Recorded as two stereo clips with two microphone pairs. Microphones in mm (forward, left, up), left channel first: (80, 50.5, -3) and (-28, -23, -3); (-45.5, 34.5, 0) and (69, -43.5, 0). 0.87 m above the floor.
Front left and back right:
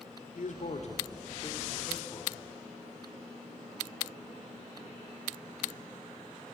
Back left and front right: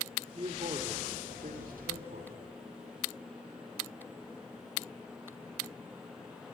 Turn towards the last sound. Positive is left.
turn(degrees=-30)